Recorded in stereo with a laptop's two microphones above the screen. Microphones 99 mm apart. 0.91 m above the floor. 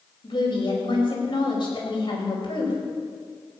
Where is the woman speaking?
55° left (ahead or behind), 5 m.